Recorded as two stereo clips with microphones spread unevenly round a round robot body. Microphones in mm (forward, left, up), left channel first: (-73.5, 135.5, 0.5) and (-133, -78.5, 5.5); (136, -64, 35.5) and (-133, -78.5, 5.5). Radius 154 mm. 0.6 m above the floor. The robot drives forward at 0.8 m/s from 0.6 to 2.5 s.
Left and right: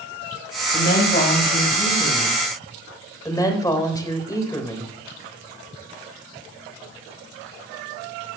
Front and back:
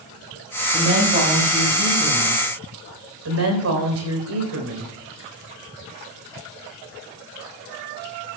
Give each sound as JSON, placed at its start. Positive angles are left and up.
{"t": 0.7, "sound": "a woman speaking", "azimuth_deg": 115, "distance_m": 4.5}
{"t": 3.2, "sound": "a woman speaking", "azimuth_deg": 145, "distance_m": 3.0}